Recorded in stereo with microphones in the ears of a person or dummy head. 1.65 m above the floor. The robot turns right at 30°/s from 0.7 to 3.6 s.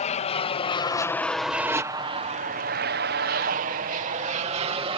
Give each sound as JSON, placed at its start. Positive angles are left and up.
{"t": 0.0, "sound": "an aircraft", "side_deg": 35}